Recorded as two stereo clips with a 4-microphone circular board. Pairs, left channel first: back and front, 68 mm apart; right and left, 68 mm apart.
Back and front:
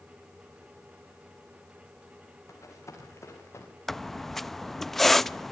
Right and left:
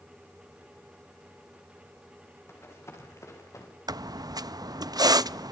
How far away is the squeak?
About 0.5 m.